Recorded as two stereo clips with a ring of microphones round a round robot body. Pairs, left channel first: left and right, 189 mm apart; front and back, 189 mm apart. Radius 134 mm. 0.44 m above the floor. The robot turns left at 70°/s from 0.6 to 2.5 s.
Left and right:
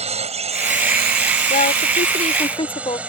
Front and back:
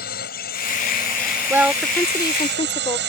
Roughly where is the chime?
I don't hear a chime.